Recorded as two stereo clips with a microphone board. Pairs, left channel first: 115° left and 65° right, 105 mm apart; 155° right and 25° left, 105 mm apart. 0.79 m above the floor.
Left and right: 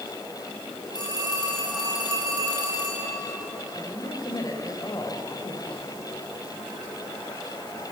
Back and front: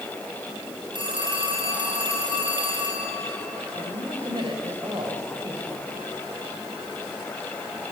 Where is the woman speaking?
60° left, 3.5 m.